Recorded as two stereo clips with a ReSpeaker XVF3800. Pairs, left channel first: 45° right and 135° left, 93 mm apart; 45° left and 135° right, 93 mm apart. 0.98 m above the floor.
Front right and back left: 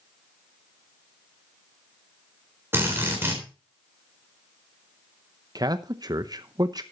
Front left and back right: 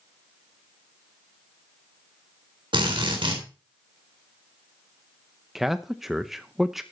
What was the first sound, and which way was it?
A drill, 160° right.